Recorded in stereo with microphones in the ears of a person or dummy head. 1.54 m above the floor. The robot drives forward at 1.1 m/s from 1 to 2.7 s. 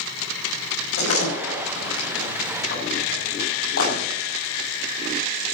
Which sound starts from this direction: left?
A door slam, at 1.0 s.